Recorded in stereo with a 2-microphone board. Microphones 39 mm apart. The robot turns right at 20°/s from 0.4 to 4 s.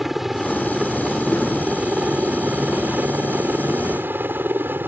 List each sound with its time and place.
0.0 s a helicopter: 170° right; by 4.9 s 100° right